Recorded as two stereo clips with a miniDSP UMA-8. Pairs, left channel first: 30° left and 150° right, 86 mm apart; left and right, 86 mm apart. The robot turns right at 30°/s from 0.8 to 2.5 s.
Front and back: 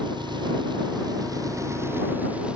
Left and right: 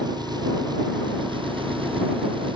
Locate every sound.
0.0 s an engine running: 125° right; by 2.6 s 70° right